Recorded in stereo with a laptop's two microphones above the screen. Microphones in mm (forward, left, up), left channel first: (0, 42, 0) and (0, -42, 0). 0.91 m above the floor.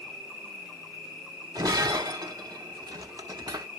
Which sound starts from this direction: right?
Breaking glass, at 1.6 s.